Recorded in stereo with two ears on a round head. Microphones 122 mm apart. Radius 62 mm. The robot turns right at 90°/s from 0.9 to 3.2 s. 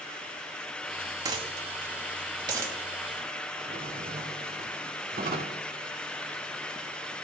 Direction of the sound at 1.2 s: 30° right (ahead or behind).